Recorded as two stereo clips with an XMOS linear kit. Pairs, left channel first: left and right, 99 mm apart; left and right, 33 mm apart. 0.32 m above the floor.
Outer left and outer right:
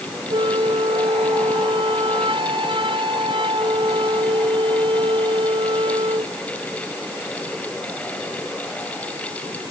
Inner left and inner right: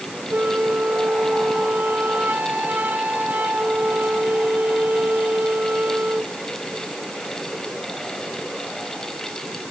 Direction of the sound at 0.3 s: 60° right (ahead or behind).